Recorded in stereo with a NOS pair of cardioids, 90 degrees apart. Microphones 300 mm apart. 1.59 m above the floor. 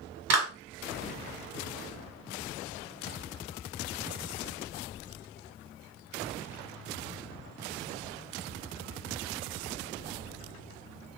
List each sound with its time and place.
0.3 s a clap: 60° right, 1.4 m